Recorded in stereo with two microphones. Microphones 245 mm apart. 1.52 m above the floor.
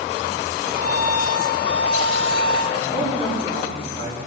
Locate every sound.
0.7 s a violin: 40° left (ahead or behind), 5 m
2.7 s a man speaking: 25° left (ahead or behind), 4.5 m